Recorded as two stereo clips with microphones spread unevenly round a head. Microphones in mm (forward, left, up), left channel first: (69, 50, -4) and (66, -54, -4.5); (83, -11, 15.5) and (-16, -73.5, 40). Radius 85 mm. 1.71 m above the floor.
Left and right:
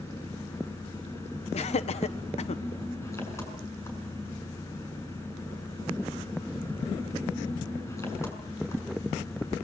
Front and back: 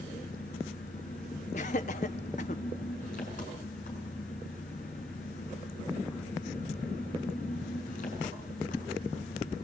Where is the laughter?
75° left, 1.2 m.